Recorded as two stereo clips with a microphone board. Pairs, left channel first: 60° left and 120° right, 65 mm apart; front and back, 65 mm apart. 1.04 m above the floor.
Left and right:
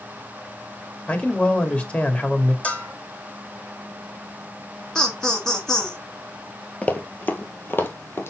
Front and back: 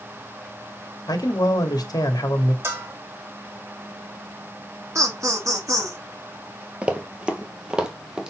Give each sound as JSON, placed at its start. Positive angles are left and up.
{"t": 1.1, "sound": "a man speaking", "azimuth_deg": -10, "distance_m": 2.0}
{"t": 2.6, "sound": "a bell", "azimuth_deg": 130, "distance_m": 2.0}
{"t": 5.0, "sound": "laughter", "azimuth_deg": 140, "distance_m": 1.5}
{"t": 6.8, "sound": "running footsteps", "azimuth_deg": 120, "distance_m": 1.3}